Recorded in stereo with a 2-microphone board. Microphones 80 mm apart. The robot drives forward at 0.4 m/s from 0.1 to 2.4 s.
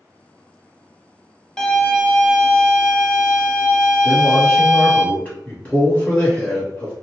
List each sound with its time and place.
1.6 s a violin: 10° left (ahead or behind), 0.6 m; by 5.0 s 5° left (ahead or behind), 0.9 m
4.0 s a man speaking: 20° left (ahead or behind), 1.3 m